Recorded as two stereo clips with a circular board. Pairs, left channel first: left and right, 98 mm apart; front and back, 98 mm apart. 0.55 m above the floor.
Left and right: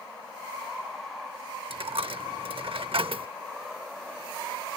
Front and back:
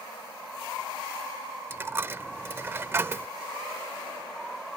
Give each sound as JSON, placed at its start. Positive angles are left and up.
{"t": 1.7, "sound": "a dropped coin", "azimuth_deg": -115}